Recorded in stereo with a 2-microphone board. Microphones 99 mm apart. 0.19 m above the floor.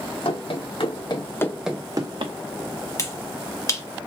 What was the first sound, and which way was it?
Running footsteps, 70° left (ahead or behind).